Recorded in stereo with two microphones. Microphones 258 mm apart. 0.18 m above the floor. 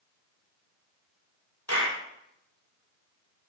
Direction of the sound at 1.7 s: 80° left.